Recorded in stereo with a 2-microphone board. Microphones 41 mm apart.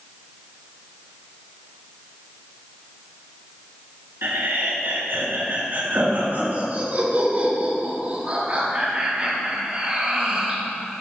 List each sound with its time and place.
4.2 s laughter: 65° right (ahead or behind), 4.5 m; by 10.6 s 20° right (ahead or behind), 7 m